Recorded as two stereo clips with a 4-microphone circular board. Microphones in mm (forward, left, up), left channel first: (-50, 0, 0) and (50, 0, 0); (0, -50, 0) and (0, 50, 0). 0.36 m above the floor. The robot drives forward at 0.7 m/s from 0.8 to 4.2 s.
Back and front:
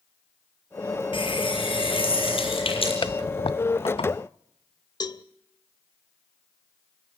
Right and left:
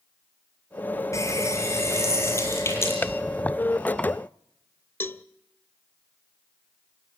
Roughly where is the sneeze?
No sneeze in this recording.